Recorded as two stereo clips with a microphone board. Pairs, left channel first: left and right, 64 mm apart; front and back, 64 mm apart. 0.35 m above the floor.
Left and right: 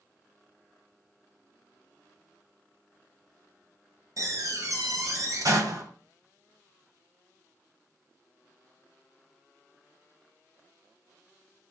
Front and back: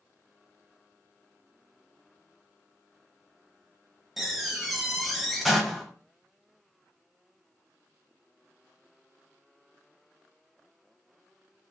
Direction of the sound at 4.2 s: 95° right.